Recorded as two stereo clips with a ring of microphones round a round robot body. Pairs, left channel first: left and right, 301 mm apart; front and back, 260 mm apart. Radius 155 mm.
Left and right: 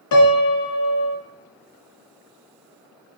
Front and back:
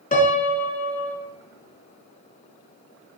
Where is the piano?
60° left, 1.5 m.